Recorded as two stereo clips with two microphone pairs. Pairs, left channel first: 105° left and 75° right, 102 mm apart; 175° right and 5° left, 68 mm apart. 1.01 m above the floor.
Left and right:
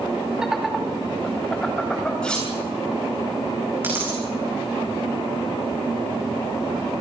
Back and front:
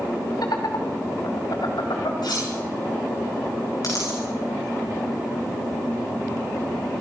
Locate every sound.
0.4 s laughter: 160° right, 2 m; by 2.1 s 175° right, 3 m
2.2 s cutlery clinking: 175° right, 9 m
3.8 s a dropped coin: 145° right, 8 m